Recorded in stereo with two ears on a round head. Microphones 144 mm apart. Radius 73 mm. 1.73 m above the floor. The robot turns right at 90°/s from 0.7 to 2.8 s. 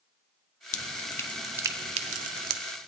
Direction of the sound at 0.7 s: 50° left (ahead or behind).